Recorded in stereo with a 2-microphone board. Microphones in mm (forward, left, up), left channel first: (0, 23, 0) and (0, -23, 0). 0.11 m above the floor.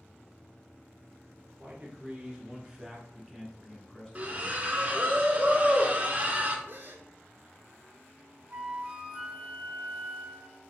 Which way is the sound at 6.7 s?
50° right (ahead or behind).